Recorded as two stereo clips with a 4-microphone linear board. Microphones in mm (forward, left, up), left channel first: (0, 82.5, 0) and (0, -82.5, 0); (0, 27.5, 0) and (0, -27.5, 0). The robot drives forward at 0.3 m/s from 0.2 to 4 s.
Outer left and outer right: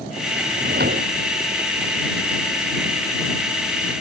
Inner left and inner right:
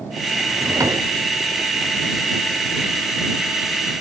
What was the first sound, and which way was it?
A drawer, 80° right.